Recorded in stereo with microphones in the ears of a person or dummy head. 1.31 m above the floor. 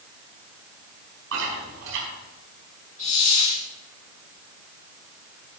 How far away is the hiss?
About 2.5 m.